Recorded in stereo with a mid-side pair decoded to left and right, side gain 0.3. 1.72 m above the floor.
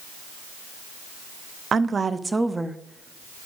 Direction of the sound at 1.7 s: 65° right.